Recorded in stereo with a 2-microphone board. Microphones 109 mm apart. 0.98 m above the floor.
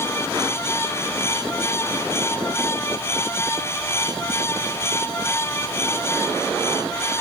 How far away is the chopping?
I don't hear chopping.